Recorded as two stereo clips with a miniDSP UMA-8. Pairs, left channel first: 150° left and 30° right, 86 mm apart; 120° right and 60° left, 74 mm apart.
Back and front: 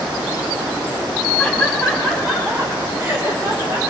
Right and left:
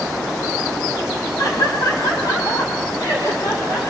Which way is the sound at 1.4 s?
135° right.